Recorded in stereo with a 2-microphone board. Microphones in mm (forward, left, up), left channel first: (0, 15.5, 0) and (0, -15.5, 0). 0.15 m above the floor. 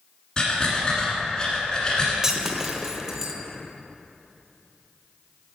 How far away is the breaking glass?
About 0.5 m.